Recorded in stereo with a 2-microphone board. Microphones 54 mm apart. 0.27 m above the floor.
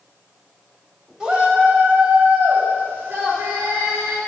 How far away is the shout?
About 1.0 m.